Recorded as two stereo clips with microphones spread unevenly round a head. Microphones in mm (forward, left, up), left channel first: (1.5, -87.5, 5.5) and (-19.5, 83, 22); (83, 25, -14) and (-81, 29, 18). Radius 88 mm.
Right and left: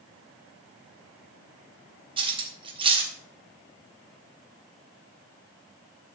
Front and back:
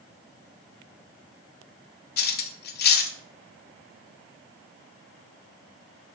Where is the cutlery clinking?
35° left, 1.3 m.